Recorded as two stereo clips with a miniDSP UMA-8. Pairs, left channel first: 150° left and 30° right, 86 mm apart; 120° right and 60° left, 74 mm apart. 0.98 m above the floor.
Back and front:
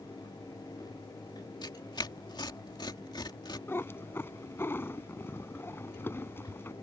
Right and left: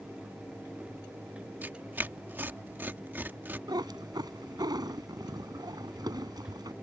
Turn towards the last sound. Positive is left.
turn(degrees=85)